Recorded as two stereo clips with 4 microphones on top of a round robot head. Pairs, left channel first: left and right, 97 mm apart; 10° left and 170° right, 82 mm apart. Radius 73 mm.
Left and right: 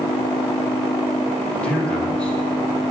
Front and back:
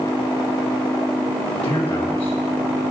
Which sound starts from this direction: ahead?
A man speaking, at 1.6 s.